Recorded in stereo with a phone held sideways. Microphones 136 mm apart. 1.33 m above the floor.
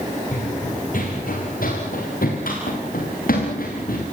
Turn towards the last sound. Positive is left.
turn(degrees=80)